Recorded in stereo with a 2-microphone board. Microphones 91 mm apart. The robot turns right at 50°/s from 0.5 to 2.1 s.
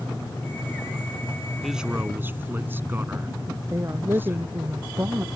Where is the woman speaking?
30° right (ahead or behind).